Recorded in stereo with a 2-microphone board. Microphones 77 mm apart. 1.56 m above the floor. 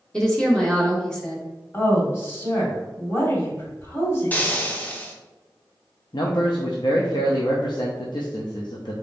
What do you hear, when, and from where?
0.1 s a woman speaking: 10° left (ahead or behind), 0.8 m
1.7 s a woman speaking: 35° left (ahead or behind), 1.9 m
4.3 s frying: 20° left (ahead or behind), 0.7 m
6.1 s a man speaking: 70° left (ahead or behind), 0.6 m